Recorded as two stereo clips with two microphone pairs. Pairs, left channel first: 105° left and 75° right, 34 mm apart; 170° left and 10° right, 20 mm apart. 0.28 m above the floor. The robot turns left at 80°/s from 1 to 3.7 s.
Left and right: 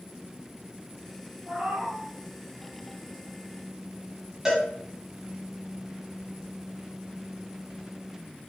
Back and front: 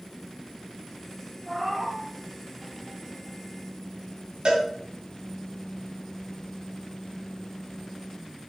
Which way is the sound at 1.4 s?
105° right.